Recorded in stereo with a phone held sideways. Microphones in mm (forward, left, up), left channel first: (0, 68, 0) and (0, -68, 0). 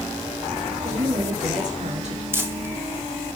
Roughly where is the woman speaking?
Right.